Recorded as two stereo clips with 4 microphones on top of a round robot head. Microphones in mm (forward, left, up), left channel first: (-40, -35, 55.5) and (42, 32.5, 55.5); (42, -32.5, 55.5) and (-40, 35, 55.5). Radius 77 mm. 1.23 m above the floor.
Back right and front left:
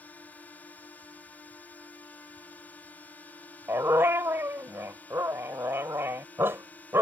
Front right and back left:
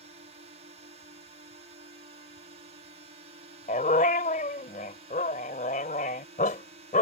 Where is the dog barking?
30° right.